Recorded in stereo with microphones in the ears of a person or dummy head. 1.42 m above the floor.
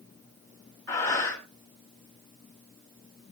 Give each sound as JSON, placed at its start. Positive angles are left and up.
{"t": 0.9, "sound": "breathing", "side_deg": 15, "distance_m": 3.0}